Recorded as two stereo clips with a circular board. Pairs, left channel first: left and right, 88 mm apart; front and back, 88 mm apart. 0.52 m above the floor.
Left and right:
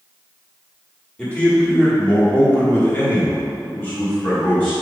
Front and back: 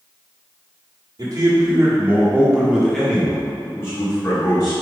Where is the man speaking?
160° left, 1.6 m; by 4.7 s 25° left, 1.8 m.